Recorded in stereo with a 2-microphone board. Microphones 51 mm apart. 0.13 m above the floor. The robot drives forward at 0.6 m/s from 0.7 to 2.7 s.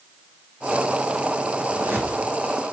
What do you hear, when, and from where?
1.7 s a whoosh: 35° right (ahead or behind), 4 m; by 2.2 s 30° right (ahead or behind), 4 m